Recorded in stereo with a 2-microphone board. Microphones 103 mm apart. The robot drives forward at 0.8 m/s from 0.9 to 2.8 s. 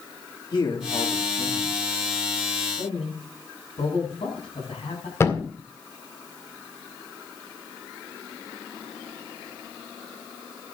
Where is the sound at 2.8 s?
90° left, 9 m.